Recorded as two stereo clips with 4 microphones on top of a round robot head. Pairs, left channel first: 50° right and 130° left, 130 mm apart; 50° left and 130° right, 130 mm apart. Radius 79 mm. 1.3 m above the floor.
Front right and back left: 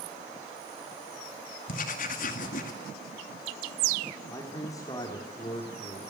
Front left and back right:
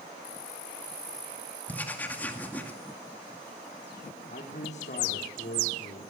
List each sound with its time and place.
1.7 s writing: 25° right, 2 m
4.3 s a man speaking: 15° left, 3.5 m